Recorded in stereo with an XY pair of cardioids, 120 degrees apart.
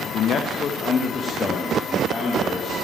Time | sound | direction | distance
0.1 | a man speaking | 65° left | 0.6 m